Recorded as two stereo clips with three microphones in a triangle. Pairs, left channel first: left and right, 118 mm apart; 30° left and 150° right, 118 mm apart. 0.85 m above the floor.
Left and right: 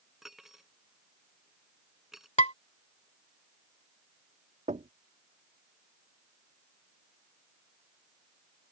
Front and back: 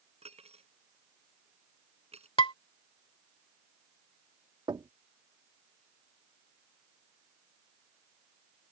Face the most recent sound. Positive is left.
turn(degrees=-95)